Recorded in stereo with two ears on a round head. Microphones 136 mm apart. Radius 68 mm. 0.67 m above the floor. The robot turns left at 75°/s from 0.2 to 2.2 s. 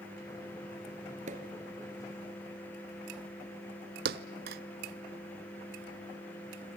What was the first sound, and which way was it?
A pop, 50° right (ahead or behind).